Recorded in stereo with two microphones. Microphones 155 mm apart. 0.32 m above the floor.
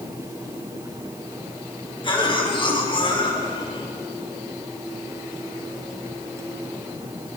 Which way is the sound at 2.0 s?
35° left (ahead or behind).